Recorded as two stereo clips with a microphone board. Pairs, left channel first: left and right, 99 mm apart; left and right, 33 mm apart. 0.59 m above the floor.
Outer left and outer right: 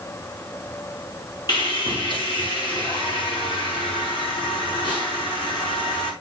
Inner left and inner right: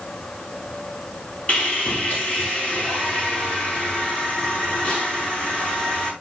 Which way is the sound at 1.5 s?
50° left (ahead or behind).